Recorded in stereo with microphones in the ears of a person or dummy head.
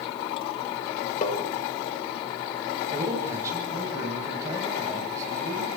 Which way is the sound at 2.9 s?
15° right (ahead or behind).